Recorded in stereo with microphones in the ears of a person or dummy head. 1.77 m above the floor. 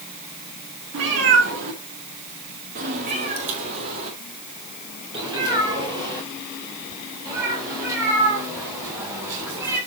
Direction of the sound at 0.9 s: 55° right (ahead or behind).